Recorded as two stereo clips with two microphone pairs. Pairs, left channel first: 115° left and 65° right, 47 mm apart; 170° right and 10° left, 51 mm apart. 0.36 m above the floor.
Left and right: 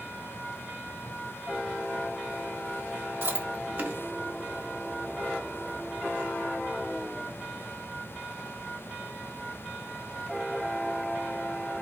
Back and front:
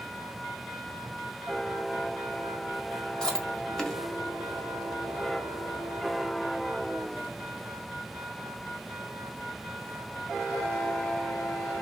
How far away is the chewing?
About 0.9 m.